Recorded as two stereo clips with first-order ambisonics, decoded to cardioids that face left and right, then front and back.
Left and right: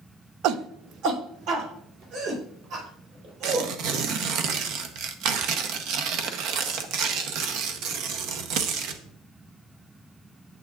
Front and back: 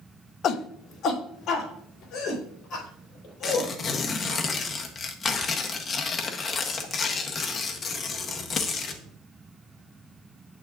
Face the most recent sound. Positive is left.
turn(degrees=-65)